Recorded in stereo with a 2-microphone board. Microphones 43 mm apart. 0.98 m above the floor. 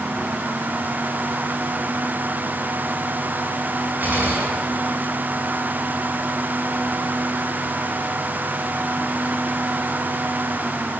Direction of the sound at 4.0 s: 45° right (ahead or behind).